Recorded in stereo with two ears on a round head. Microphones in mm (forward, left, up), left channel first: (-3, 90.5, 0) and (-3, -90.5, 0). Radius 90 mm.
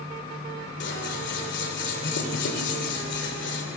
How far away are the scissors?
About 3 m.